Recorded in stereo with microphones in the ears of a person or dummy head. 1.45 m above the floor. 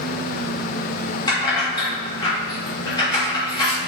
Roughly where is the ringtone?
I don't hear a ringtone.